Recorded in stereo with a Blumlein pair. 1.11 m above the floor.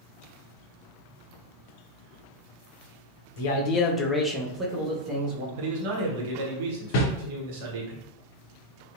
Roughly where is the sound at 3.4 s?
Ahead left.